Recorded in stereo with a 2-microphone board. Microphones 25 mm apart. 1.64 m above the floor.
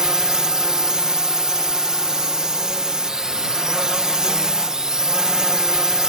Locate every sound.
0.0 s a drone: 30° right (ahead or behind)